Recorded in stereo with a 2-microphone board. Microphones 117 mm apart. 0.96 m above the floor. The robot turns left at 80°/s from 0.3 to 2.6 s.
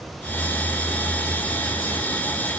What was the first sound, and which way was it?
Only background noise.